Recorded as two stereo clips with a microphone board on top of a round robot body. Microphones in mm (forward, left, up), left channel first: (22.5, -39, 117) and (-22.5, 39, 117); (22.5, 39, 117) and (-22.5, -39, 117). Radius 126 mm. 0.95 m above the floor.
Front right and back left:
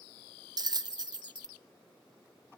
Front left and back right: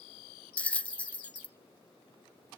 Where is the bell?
130° left, 0.7 m.